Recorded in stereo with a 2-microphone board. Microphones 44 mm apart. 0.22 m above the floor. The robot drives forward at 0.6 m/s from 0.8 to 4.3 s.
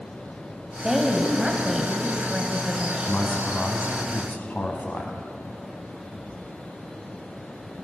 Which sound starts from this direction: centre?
A woman speaking, at 0.8 s.